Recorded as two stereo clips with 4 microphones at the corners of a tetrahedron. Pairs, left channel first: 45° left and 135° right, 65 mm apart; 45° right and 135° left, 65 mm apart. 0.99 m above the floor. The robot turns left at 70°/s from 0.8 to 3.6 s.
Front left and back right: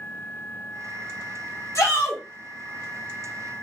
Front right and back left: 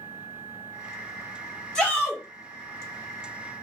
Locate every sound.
1.8 s a shout: 30° left, 1.2 m; by 2.2 s 5° right, 1.2 m